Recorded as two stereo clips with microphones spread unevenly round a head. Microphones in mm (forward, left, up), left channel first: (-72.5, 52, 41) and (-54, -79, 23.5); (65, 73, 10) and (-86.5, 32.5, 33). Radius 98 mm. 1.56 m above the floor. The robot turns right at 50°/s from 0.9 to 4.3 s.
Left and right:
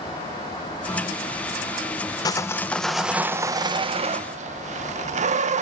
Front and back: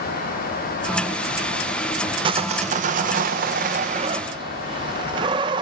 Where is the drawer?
I don't hear a drawer.